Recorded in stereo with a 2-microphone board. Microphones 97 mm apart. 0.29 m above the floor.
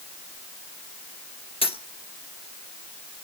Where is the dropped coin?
75° left (ahead or behind), 1.7 m.